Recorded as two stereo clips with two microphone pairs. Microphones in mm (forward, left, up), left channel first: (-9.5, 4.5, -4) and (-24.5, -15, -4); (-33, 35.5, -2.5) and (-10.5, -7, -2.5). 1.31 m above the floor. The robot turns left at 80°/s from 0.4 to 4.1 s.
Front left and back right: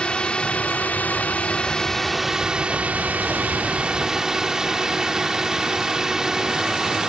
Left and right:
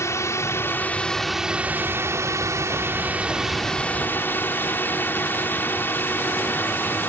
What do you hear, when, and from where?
0.0 s a drone: 95° left; by 7.1 s 160° left